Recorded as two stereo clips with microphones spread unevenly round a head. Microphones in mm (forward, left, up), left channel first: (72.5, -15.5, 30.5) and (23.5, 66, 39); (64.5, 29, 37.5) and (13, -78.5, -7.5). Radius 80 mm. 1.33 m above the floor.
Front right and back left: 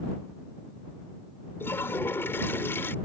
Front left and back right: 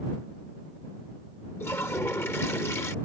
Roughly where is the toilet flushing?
Ahead.